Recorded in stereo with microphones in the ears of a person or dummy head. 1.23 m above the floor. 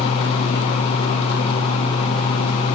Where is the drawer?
I don't hear a drawer.